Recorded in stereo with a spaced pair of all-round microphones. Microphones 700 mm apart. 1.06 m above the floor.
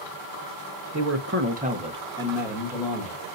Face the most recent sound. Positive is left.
turn(degrees=0)  # may be behind; listen again after turning